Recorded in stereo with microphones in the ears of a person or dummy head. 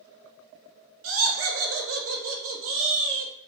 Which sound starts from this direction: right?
Laughter, at 1.0 s.